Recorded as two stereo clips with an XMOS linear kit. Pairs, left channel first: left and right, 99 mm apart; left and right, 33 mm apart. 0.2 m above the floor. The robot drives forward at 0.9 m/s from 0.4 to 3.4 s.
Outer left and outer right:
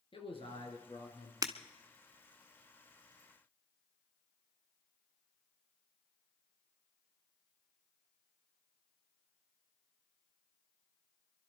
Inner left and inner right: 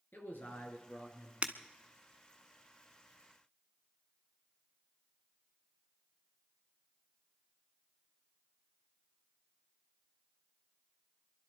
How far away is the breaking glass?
About 1.1 m.